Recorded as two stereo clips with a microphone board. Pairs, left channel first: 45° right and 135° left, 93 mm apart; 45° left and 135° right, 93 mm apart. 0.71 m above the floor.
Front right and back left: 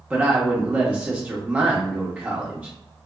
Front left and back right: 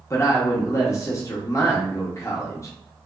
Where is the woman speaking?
70° left, 0.8 m.